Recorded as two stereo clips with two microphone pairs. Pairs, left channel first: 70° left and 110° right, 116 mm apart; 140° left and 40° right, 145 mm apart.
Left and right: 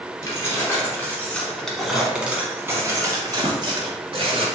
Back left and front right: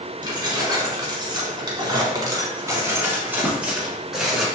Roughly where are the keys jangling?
Ahead.